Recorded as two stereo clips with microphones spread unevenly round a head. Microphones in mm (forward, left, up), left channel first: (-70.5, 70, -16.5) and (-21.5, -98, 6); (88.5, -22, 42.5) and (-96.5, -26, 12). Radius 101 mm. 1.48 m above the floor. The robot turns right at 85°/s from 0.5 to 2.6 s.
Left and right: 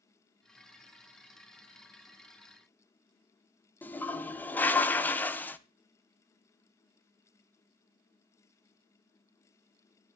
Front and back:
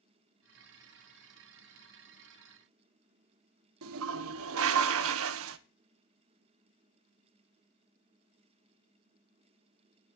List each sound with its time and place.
3.8 s a toilet flushing: 170° right, 0.8 m